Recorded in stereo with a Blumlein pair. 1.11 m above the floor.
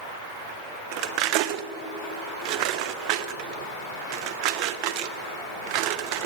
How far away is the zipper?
No zipper in this recording.